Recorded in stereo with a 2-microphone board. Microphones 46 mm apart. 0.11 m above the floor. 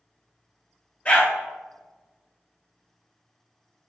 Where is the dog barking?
30° left (ahead or behind), 0.8 m.